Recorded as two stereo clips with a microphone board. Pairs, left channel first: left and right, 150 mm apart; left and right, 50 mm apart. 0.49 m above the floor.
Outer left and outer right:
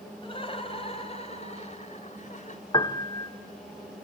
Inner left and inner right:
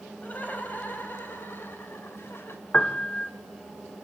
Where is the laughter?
35° left (ahead or behind), 3.5 m; by 2.6 s 55° left (ahead or behind), 2.5 m.